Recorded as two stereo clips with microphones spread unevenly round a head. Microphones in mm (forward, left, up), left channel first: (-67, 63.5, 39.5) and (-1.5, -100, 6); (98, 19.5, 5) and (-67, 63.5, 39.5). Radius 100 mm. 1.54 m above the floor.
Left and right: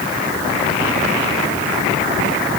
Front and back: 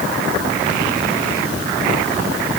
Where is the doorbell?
I don't hear a doorbell.